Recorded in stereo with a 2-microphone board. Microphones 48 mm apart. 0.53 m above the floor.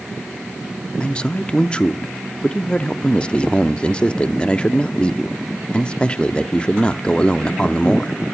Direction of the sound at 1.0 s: 25° left (ahead or behind).